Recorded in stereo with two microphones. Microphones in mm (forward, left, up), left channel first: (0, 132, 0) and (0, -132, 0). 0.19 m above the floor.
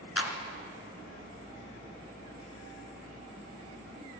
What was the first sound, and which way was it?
A clap, 60° left (ahead or behind).